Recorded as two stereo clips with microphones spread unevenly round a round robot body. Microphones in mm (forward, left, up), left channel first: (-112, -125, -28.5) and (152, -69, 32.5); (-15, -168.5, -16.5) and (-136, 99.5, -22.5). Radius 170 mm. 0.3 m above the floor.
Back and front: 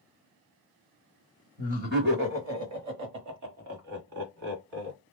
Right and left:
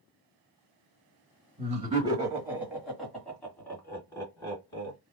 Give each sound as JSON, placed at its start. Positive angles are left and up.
{"t": 1.6, "sound": "laughter", "azimuth_deg": 80, "distance_m": 1.0}